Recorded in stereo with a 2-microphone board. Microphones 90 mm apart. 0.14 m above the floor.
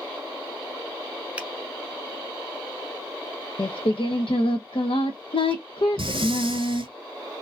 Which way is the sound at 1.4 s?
15° right (ahead or behind).